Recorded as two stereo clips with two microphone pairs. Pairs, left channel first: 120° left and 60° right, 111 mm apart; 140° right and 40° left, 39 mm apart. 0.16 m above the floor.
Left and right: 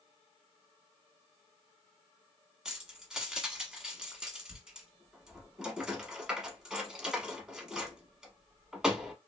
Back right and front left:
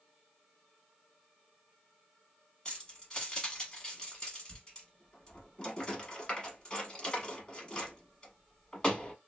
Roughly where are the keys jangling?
Behind right.